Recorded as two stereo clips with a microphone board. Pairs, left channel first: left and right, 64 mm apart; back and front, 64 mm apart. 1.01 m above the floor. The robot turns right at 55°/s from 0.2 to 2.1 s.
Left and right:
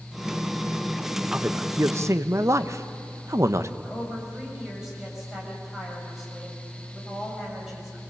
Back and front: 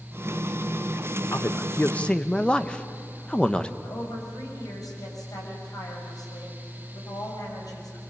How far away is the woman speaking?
About 6.5 m.